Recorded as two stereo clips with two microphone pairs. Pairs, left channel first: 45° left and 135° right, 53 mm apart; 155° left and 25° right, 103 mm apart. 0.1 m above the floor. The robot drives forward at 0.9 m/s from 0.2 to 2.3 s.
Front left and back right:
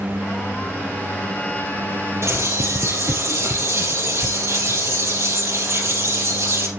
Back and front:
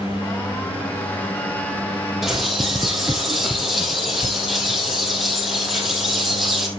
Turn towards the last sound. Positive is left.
turn(degrees=-110)